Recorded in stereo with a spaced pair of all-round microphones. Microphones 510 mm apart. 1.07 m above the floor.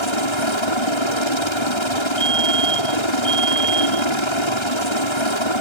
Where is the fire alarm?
40° left (ahead or behind).